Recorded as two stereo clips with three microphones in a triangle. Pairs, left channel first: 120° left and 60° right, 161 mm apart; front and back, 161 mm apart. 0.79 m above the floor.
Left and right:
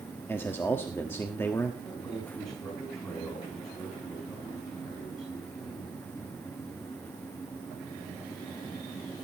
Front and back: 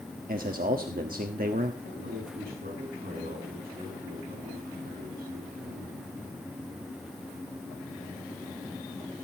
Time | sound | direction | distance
0.3 | a man speaking | 165° right | 1.3 m
1.8 | a man speaking | 175° right | 5 m